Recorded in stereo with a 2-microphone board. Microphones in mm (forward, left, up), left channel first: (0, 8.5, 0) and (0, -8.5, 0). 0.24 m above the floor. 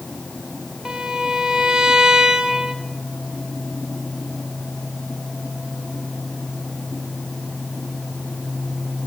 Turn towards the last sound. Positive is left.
turn(degrees=-50)  # may be behind; listen again after turning